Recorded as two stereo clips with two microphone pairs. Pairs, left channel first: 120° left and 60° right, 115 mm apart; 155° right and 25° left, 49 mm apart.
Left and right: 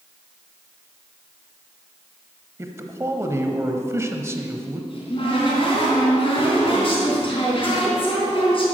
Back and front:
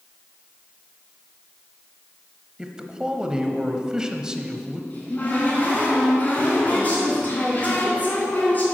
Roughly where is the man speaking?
Ahead right.